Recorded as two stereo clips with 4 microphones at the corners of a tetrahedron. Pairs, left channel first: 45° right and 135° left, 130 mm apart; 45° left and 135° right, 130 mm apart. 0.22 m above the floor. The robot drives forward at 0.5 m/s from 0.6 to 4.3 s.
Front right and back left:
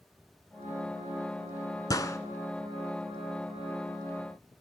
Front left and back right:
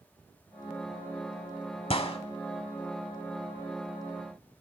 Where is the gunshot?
10° left, 0.9 m; by 2.2 s 15° left, 0.8 m.